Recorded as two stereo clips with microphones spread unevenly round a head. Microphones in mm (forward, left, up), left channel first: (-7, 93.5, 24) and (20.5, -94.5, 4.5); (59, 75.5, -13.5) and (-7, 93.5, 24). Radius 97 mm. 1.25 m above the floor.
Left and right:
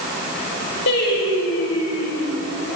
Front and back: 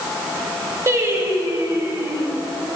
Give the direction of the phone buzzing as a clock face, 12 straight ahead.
I don't hear a phone buzzing.